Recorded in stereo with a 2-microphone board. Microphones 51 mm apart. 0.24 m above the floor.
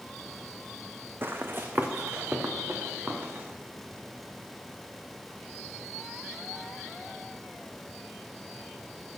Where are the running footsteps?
45° right (ahead or behind), 0.9 m; by 3.5 s 35° right (ahead or behind), 2.5 m.